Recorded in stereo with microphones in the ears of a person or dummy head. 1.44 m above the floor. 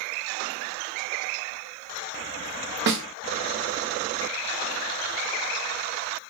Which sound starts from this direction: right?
A snare drum, at 2.9 s.